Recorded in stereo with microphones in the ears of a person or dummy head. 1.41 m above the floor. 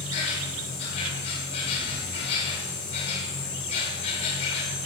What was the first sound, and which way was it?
An insect, 35° left (ahead or behind).